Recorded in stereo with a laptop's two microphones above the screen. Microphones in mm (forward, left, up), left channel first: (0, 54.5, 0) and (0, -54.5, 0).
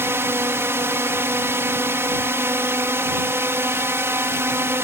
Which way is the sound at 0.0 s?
25° right (ahead or behind).